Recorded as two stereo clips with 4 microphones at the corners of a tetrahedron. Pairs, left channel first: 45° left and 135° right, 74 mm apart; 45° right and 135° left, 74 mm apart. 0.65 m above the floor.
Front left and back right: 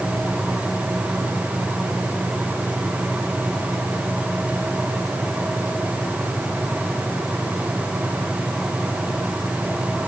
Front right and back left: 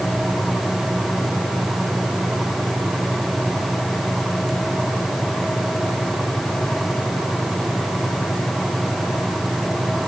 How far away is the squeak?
I don't hear a squeak.